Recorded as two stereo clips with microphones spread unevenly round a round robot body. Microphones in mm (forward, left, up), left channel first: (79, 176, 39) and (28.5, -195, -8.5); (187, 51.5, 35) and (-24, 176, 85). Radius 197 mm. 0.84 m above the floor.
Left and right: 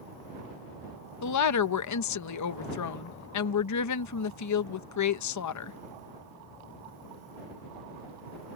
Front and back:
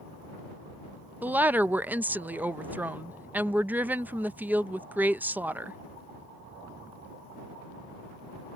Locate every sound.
1.2 s a woman speaking: 55° left